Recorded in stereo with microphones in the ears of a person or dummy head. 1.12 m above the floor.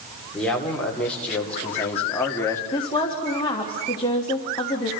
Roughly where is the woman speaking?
Centre.